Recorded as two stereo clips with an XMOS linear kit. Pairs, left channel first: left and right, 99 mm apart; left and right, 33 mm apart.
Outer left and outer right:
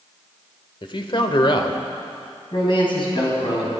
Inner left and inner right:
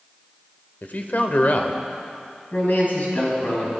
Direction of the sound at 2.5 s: 50° left (ahead or behind).